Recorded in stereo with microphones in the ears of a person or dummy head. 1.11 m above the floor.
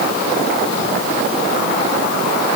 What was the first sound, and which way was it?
Only background noise.